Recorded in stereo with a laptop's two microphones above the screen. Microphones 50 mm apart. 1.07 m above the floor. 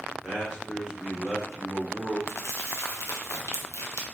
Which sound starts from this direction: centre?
A man speaking, at 0.2 s.